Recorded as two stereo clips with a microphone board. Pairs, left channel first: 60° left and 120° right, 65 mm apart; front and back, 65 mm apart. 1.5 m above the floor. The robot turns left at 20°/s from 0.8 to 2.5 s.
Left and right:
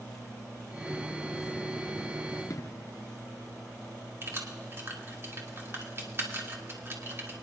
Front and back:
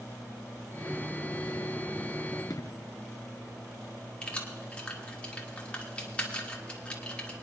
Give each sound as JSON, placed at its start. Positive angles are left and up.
{"t": 2.5, "sound": "an explosion", "azimuth_deg": 25, "distance_m": 0.6}
{"t": 4.2, "sound": "keys jangling", "azimuth_deg": -70, "distance_m": 1.8}